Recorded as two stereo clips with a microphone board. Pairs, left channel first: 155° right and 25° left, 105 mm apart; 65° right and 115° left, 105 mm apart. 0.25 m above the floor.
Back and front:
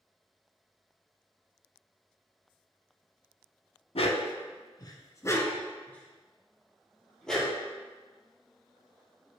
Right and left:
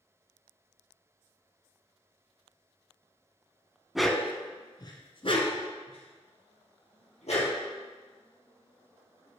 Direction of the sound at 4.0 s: 160° right.